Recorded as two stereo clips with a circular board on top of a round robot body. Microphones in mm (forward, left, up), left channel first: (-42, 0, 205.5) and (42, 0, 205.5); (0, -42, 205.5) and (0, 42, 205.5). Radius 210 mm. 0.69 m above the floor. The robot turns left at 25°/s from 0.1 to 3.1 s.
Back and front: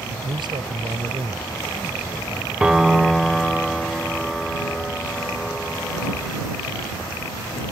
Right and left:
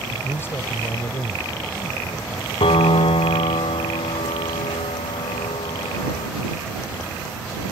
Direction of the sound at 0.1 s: 20° right.